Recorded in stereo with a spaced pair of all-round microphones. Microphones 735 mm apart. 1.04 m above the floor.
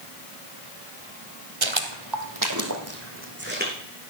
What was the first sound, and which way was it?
Footsteps, 45° right (ahead or behind).